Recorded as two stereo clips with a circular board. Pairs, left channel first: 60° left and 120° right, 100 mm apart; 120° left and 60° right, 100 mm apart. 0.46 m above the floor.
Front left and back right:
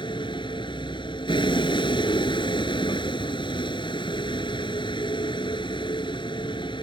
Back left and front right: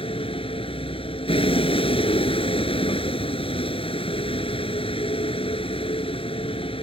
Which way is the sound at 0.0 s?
95° left.